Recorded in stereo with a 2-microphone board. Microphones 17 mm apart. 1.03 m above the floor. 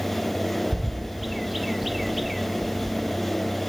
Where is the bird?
10° right (ahead or behind), 0.8 m.